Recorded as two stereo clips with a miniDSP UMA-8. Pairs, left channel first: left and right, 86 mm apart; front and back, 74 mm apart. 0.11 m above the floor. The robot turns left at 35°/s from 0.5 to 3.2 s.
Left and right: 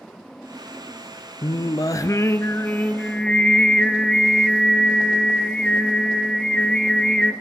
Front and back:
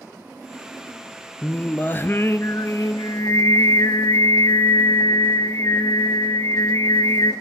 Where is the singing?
70° left, 0.6 m; by 7.3 s 10° left, 0.6 m.